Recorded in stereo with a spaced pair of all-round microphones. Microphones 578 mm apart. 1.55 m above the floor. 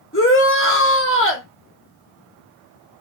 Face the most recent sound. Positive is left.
turn(degrees=20)  # may be behind; listen again after turning